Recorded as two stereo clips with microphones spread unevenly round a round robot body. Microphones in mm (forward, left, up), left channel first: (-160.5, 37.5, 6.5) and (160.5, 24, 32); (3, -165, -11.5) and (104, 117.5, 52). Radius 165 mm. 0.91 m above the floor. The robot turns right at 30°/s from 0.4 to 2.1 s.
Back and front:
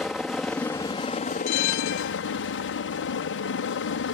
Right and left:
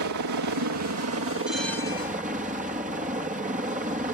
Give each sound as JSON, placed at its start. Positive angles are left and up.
{"t": 0.0, "sound": "a helicopter", "azimuth_deg": 90}
{"t": 1.5, "sound": "a bell", "azimuth_deg": 160}